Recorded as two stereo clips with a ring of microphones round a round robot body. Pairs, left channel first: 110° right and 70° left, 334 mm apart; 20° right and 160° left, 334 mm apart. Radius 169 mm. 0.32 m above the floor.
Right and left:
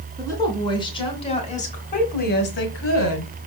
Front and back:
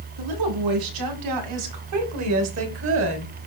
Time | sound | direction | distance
0.2 | a woman speaking | 165° left | 3 m